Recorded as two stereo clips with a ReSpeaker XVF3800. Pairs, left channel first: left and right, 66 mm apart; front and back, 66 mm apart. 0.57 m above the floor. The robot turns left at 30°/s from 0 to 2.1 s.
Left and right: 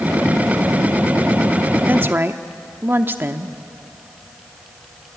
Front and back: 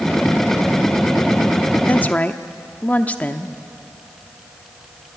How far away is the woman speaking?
About 0.8 m.